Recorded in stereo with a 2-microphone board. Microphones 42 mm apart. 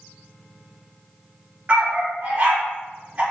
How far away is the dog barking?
About 1.9 m.